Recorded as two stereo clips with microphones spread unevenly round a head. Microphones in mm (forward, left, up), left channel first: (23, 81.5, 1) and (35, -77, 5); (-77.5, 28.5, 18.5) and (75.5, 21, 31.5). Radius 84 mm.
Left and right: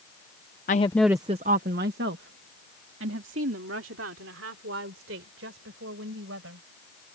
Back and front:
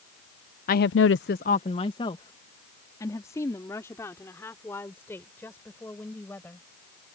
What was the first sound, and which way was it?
A woman speaking, 140° left.